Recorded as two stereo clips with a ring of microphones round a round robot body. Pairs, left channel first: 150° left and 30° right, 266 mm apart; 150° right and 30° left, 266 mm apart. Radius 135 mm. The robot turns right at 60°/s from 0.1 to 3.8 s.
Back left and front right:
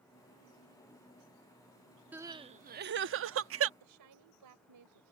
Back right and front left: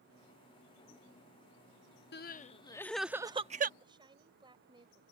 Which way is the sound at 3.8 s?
45° right.